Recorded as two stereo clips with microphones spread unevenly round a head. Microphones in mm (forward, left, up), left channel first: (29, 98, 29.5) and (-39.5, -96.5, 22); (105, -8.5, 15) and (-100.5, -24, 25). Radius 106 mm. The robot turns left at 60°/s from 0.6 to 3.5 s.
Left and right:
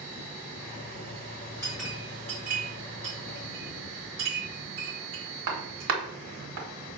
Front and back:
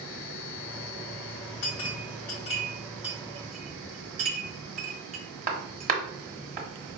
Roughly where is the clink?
Ahead.